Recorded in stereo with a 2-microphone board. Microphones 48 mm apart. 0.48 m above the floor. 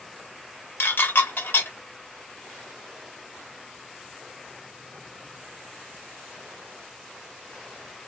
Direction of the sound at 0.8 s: 55° left (ahead or behind).